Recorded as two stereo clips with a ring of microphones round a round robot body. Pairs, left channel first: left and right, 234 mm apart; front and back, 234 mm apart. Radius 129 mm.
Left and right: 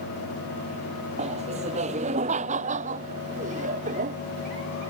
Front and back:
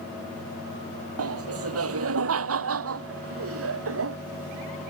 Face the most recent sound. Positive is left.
turn(degrees=-155)